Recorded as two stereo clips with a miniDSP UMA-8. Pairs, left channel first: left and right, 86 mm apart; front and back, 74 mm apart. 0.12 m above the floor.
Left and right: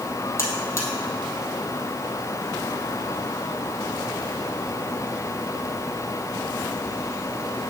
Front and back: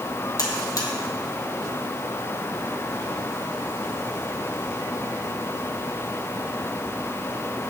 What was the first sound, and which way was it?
A buzzer, 35° left.